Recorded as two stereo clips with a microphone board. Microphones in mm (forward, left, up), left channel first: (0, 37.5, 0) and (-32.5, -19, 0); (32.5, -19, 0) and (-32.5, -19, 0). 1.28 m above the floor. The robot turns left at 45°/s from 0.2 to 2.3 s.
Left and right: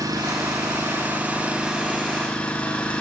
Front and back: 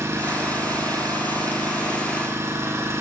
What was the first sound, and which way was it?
An engine running, 135° right.